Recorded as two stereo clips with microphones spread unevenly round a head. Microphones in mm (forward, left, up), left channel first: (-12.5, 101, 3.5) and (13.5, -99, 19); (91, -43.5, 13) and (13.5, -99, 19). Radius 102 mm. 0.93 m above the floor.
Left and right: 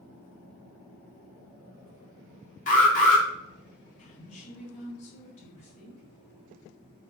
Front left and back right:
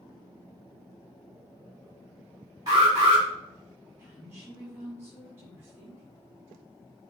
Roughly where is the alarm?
Behind left.